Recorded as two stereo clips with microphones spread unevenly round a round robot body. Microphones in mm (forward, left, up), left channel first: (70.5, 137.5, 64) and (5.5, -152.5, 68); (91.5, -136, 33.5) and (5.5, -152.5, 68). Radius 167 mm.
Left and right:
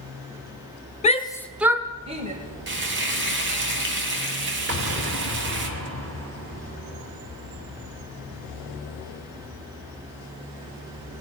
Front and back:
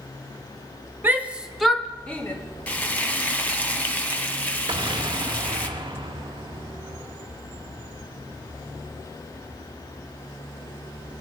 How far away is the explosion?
About 1.7 m.